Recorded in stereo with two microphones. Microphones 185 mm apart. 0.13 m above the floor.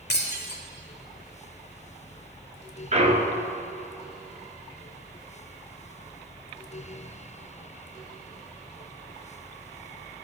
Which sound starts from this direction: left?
Breaking glass, at 0.1 s.